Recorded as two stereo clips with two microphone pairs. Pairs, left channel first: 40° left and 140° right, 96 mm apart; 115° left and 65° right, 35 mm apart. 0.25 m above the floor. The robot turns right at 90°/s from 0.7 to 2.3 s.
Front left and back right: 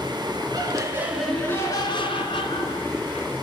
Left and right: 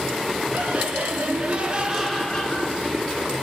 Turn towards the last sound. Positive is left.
turn(degrees=45)